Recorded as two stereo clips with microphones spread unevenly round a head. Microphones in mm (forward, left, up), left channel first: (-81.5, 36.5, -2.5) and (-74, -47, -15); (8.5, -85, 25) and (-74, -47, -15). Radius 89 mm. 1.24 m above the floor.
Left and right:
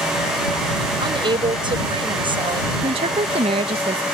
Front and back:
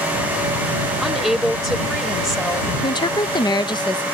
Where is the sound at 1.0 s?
115° right.